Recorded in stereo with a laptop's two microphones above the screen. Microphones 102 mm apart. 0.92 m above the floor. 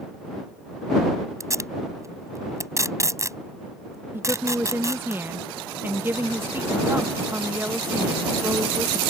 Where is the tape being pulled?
30° right (ahead or behind).